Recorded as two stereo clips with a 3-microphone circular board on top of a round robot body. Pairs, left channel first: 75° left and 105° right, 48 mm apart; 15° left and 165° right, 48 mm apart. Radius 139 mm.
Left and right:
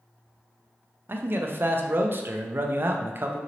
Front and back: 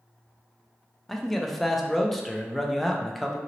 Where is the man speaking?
70° right, 0.5 m.